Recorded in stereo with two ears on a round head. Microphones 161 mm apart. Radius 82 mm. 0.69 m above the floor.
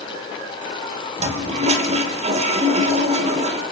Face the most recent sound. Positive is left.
turn(degrees=-40)  # may be behind; listen again after turning